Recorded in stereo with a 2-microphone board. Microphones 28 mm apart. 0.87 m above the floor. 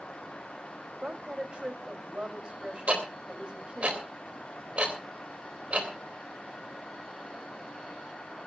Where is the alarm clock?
No alarm clock in this recording.